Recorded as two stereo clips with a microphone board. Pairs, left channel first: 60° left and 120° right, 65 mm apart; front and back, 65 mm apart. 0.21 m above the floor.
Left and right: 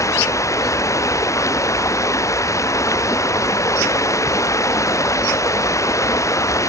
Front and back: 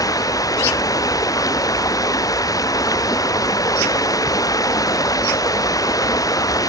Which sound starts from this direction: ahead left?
Running water, at 0.0 s.